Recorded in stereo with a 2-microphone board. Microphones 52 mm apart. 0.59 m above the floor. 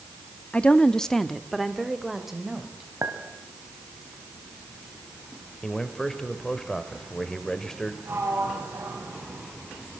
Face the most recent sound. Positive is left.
turn(degrees=-55)  # may be behind; listen again after turning